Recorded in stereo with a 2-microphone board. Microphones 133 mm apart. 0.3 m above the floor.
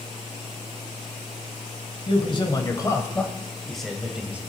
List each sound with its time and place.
2.1 s a man speaking: 40° left (ahead or behind), 1.4 m; by 4.4 s 10° right (ahead or behind), 1.5 m